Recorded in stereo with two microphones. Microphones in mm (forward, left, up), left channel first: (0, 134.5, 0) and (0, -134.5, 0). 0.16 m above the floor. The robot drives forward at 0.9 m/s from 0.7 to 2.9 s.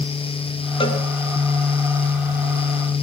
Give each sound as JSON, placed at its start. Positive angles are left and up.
{"t": 0.8, "sound": "a cowbell", "side_deg": 20, "distance_m": 1.1}